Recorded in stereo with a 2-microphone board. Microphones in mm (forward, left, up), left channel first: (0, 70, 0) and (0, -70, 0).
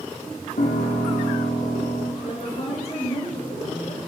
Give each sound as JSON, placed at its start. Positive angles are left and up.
{"t": 0.6, "sound": "a piano", "side_deg": 85, "distance_m": 3.5}
{"t": 2.2, "sound": "a woman speaking", "side_deg": 50, "distance_m": 6.5}